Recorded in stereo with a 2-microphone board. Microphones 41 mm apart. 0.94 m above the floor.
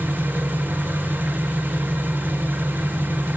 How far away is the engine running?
About 3 m.